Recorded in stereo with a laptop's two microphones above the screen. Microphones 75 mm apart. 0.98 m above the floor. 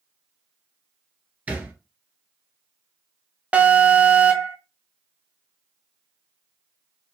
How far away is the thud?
About 1.4 m.